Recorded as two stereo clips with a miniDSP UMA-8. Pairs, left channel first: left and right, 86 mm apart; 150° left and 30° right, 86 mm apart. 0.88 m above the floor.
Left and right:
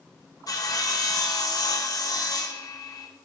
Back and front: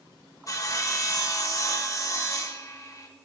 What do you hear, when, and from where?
0.5 s sawing: 115° left, 0.8 m